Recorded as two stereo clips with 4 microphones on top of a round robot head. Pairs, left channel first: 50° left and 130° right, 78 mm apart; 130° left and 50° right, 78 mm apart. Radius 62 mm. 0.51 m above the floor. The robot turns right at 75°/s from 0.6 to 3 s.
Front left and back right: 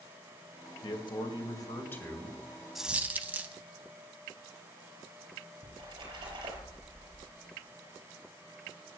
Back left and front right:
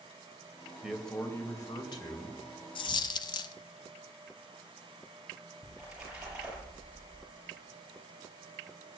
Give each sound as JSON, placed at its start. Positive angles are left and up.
{"t": 0.8, "sound": "a man speaking", "azimuth_deg": 30, "distance_m": 2.5}
{"t": 2.8, "sound": "a dropped coin", "azimuth_deg": 145, "distance_m": 0.5}
{"t": 5.6, "sound": "a splash", "azimuth_deg": -130, "distance_m": 6.0}